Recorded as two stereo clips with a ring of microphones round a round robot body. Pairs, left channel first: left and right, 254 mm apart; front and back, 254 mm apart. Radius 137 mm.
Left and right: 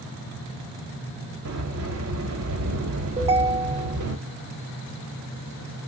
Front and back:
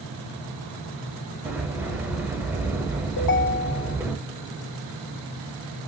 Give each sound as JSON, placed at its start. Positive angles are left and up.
{"t": 1.4, "sound": "a sliding door", "azimuth_deg": -100, "distance_m": 1.4}
{"t": 3.2, "sound": "a ringtone", "azimuth_deg": -20, "distance_m": 1.1}